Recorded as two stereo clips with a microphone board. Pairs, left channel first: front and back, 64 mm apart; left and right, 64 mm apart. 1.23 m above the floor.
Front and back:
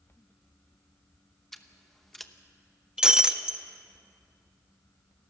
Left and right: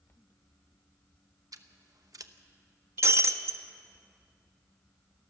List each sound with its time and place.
1.5 s scissors: 85° right, 0.9 m
3.0 s breaking glass: 105° right, 0.8 m